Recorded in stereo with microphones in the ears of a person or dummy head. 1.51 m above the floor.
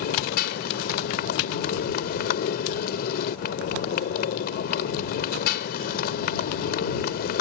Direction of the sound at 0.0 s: 55° left (ahead or behind).